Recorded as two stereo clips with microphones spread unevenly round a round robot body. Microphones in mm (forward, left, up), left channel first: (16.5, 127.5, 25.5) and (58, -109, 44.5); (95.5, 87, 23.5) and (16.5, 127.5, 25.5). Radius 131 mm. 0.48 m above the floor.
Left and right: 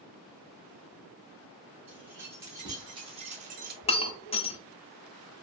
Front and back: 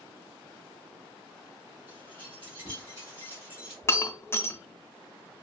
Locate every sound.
1.9 s keys jangling: 165° right, 1.3 m; by 3.7 s 120° right, 0.6 m
3.8 s breaking glass: 35° left, 0.6 m